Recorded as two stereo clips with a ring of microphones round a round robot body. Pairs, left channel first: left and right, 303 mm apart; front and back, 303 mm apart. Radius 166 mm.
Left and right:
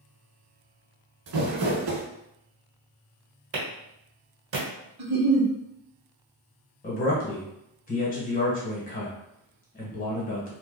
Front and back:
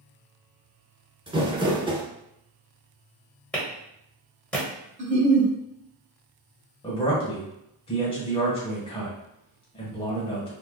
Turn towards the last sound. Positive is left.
turn(degrees=55)